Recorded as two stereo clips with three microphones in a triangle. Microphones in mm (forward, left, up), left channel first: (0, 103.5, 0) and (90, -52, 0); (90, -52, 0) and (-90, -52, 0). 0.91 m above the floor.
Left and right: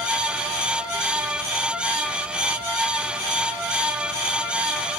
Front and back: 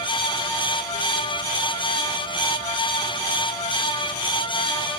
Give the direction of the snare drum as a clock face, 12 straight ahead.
I don't hear a snare drum.